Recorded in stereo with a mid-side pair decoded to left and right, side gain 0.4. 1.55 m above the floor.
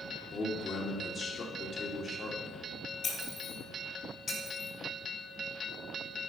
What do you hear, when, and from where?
0.3 s a man speaking: 50° left, 2.5 m
3.0 s breaking glass: 60° left, 3.5 m